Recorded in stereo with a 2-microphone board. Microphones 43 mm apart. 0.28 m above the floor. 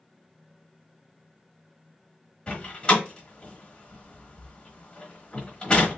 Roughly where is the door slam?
Left.